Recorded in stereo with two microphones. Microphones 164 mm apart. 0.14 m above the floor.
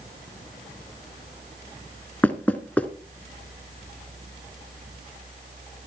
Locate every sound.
2.2 s knocking: 10° left (ahead or behind), 1.4 m